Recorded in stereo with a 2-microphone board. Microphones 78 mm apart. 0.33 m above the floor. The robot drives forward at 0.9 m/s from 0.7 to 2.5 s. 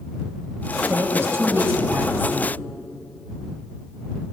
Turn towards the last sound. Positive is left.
turn(degrees=-25)  # may be behind; listen again after turning